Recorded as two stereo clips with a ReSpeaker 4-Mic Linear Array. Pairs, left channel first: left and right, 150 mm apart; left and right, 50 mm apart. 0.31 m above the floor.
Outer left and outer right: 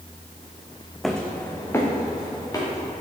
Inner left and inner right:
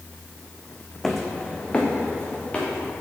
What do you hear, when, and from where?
1.0 s footsteps: centre (ahead or behind), 0.8 m; by 2.9 s 25° left (ahead or behind), 2.5 m